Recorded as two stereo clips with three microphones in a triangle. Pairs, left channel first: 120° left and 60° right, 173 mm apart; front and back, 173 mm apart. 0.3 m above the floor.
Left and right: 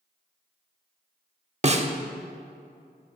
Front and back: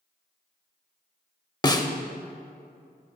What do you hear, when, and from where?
1.6 s a snare drum: 55° right, 0.5 m